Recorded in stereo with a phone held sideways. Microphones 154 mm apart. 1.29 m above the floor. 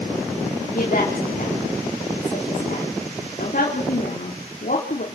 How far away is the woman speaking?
About 4 m.